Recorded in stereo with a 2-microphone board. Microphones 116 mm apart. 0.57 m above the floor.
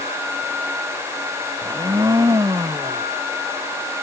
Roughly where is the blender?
Right.